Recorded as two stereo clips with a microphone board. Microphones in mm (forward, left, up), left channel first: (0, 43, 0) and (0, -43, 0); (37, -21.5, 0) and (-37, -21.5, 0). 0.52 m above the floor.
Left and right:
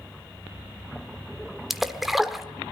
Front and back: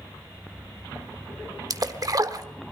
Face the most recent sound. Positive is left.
turn(degrees=-175)